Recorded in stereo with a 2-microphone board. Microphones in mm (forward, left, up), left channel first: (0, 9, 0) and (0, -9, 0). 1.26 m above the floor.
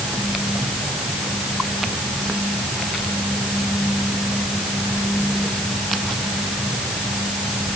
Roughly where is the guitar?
I don't hear a guitar.